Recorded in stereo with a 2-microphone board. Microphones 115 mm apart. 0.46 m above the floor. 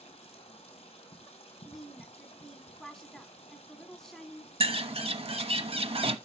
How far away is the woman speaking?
About 1.1 m.